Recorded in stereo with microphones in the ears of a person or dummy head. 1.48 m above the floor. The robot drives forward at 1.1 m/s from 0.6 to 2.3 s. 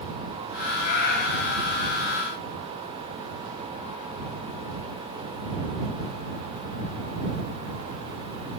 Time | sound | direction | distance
0.8 | a cat meowing | 50° left (ahead or behind) | 1.8 m